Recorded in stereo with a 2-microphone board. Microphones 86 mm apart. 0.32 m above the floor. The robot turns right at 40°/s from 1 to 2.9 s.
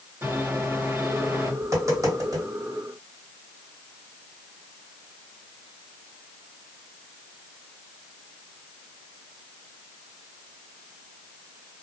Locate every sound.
0.2 s a microwave: 30° right (ahead or behind), 1.5 m; by 1.5 s 35° right (ahead or behind), 1.5 m
1.6 s tapping: 35° right (ahead or behind), 1.9 m; by 2.5 s 40° right (ahead or behind), 1.9 m